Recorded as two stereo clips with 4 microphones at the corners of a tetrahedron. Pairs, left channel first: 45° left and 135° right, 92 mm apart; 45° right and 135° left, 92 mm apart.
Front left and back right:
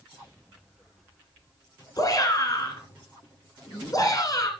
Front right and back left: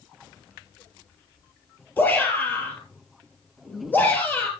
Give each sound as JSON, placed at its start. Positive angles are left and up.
{"t": 2.0, "sound": "a shout", "azimuth_deg": 15, "distance_m": 2.5}